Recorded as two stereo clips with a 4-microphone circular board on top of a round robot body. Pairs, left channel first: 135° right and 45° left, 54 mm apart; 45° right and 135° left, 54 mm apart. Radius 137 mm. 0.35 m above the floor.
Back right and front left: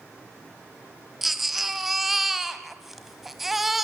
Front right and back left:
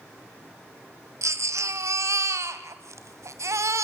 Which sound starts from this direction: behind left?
A baby crying, at 1.2 s.